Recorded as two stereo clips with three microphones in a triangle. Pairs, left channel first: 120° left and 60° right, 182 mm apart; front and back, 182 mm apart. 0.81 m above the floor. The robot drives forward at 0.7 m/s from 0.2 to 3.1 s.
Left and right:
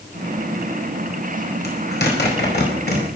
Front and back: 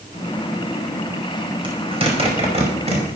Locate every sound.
1.6 s a zipper: 120° left, 5 m; by 3.0 s 130° left, 5.5 m